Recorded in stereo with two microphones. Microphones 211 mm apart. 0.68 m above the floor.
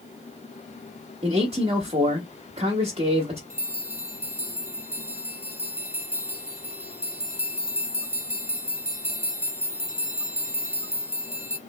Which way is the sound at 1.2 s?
25° right (ahead or behind).